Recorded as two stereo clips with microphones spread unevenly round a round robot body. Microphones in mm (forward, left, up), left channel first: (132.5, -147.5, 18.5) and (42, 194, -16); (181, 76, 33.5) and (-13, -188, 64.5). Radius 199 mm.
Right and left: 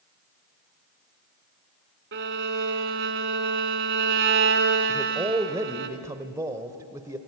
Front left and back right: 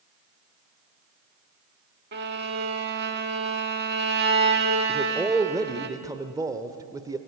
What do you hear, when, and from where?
2.1 s a violin: 170° left, 0.8 m
4.9 s a man speaking: 155° left, 0.8 m